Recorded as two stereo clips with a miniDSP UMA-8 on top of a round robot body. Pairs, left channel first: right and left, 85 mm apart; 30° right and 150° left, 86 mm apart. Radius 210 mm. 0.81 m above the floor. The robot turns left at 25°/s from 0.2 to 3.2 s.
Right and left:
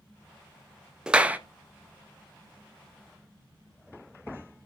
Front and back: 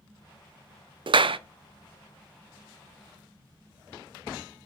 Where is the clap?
170° left, 0.6 m; by 1.4 s 165° left, 0.6 m.